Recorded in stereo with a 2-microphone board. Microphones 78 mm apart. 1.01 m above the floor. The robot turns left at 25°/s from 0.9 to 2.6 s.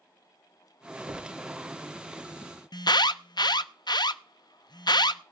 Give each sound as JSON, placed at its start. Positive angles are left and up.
{"t": 1.1, "sound": "a thud", "side_deg": -60, "distance_m": 1.4}
{"t": 2.7, "sound": "an alarm", "side_deg": 75, "distance_m": 0.5}